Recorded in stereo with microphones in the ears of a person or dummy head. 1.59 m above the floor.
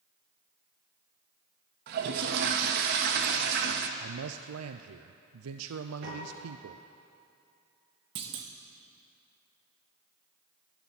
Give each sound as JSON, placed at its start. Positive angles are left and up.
{"t": 1.9, "sound": "a toilet flushing", "side_deg": -55, "distance_m": 1.2}
{"t": 4.0, "sound": "a man speaking", "side_deg": -90, "distance_m": 0.6}
{"t": 6.0, "sound": "a piano", "side_deg": -70, "distance_m": 5.5}
{"t": 8.2, "sound": "a clunk", "side_deg": -30, "distance_m": 1.1}